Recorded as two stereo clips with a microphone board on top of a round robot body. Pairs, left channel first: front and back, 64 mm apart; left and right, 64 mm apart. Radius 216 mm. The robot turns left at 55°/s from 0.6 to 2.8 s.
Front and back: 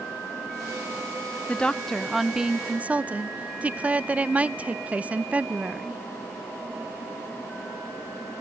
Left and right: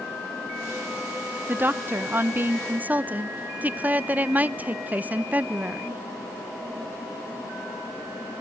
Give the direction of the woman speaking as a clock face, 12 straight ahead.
2 o'clock.